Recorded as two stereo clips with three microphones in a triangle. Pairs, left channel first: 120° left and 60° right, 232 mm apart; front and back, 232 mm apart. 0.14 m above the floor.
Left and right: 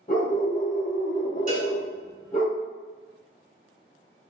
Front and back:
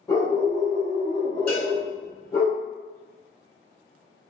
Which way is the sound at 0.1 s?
75° left.